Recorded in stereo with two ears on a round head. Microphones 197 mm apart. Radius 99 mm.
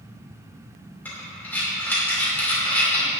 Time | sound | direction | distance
1.1 | breathing | 10° left (ahead or behind) | 2.5 m